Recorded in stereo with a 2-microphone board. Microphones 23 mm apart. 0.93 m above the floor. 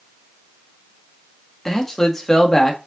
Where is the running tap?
I don't hear a running tap.